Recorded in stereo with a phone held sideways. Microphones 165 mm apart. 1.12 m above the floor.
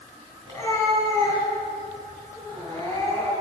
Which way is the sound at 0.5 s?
25° left (ahead or behind).